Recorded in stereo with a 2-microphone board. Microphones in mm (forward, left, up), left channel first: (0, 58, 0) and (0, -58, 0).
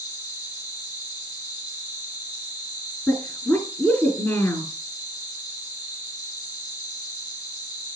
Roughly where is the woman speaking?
Centre.